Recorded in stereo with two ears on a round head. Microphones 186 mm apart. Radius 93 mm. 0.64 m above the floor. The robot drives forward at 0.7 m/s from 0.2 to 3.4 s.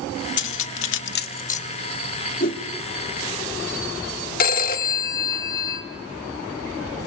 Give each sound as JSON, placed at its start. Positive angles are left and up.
{"t": 0.4, "sound": "cutlery clinking", "side_deg": 55, "distance_m": 0.6}
{"t": 2.4, "sound": "a whoosh", "side_deg": 45, "distance_m": 1.3}
{"t": 4.4, "sound": "a phone ringing", "side_deg": 45, "distance_m": 1.1}